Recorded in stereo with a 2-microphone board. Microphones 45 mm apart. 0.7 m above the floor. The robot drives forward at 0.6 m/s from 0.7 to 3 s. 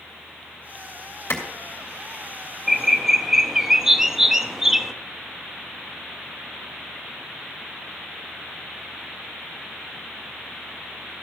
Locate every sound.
1.3 s a clap: 75° left (ahead or behind), 2.5 m
2.7 s a bird: 10° right (ahead or behind), 0.7 m